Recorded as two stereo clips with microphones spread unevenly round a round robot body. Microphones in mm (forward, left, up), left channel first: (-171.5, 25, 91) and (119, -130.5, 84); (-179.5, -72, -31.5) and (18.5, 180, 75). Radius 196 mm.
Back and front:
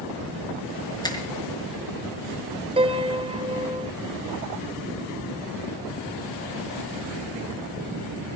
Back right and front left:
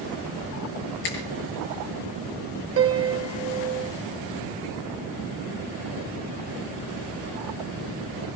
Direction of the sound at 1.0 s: 130° right.